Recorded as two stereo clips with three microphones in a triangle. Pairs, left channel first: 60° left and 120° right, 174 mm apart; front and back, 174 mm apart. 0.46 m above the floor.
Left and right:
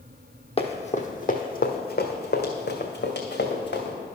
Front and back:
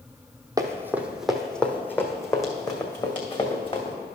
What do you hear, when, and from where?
0.6 s running footsteps: 110° left, 1.0 m; by 4.0 s 60° left, 2 m